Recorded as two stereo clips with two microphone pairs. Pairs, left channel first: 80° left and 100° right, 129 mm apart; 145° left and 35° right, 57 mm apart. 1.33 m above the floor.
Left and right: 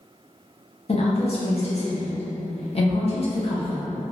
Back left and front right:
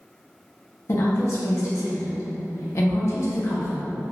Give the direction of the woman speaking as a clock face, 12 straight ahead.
8 o'clock.